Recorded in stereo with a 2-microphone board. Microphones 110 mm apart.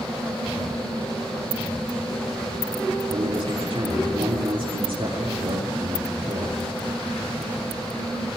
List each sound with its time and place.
3.1 s a man speaking: 55° right (ahead or behind), 7 m